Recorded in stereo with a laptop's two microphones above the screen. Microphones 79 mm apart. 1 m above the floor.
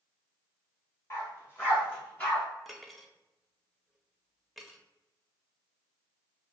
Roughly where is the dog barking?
Left.